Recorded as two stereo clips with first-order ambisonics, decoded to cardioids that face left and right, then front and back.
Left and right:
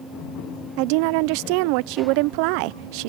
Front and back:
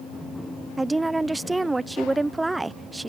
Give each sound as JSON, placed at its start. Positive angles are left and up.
{"t": 0.8, "sound": "a woman speaking", "azimuth_deg": -95}